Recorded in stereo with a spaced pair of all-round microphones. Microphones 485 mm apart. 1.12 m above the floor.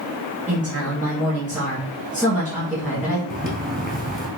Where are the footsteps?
20° right (ahead or behind), 1.1 m.